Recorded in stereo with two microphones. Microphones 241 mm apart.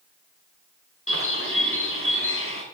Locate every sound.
1.1 s a bird: 65° left (ahead or behind), 4 m